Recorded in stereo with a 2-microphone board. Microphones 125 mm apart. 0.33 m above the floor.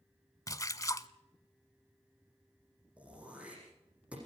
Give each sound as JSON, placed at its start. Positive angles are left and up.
{"t": 0.5, "sound": "a splash", "side_deg": 30, "distance_m": 0.7}
{"t": 3.0, "sound": "throat clearing", "side_deg": -10, "distance_m": 9.0}